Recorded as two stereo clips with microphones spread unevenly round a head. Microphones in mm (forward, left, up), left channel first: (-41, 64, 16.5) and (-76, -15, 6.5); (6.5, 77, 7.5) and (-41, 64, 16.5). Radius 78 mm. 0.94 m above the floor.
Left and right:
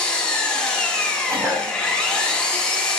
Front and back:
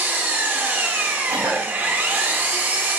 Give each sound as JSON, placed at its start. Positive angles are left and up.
{"t": 0.0, "sound": "an engine running", "azimuth_deg": 145, "distance_m": 2.5}
{"t": 1.3, "sound": "a cough", "azimuth_deg": -165, "distance_m": 5.0}